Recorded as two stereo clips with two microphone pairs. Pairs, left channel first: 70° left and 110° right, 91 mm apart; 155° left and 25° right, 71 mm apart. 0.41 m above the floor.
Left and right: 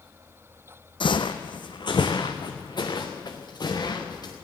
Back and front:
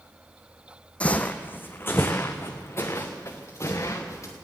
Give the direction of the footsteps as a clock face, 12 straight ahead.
9 o'clock.